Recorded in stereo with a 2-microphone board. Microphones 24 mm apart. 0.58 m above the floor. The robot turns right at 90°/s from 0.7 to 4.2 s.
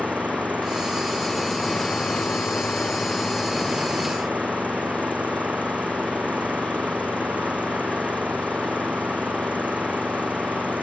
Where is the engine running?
70° right; by 10.8 s 115° right.